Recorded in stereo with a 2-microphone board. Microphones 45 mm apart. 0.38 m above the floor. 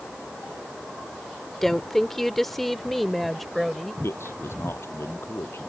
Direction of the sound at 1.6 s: 10° left (ahead or behind).